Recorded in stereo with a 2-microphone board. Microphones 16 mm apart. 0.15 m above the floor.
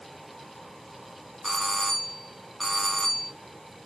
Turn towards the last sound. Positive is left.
turn(degrees=5)  # may be behind; listen again after turning